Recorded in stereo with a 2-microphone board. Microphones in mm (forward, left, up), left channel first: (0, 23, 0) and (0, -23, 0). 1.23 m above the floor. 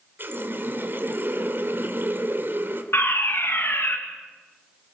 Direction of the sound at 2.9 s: 55° left (ahead or behind).